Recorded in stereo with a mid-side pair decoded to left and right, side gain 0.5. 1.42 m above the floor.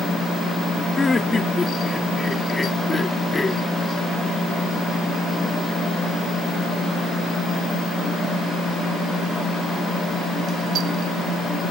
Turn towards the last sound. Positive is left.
turn(degrees=15)